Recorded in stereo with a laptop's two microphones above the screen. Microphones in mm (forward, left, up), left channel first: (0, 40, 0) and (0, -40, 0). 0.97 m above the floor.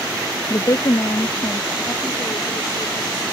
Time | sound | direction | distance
0.5 | a woman speaking | 40° left (ahead or behind) | ?